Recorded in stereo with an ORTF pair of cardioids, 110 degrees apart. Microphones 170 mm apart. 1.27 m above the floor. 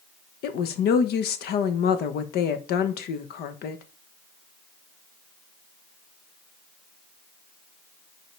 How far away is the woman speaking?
About 1.0 m.